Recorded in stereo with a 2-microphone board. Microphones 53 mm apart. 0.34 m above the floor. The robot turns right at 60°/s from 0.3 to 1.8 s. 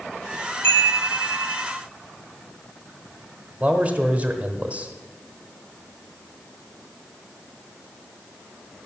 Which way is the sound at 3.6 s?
25° right (ahead or behind).